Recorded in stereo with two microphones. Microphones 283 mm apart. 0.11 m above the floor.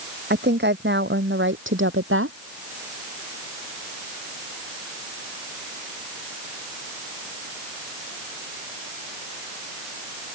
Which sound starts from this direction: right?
A woman speaking, at 0.3 s.